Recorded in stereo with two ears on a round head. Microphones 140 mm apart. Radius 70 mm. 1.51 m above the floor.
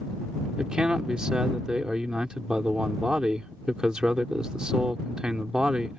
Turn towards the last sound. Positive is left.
turn(degrees=-5)  # may be behind; listen again after turning